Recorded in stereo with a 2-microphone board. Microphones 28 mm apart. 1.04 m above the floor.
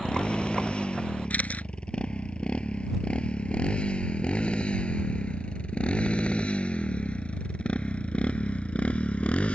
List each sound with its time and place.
0.0 s a motorcycle: 40° left (ahead or behind); by 9.6 s 50° left (ahead or behind)
1.3 s a camera shutter: 60° left (ahead or behind)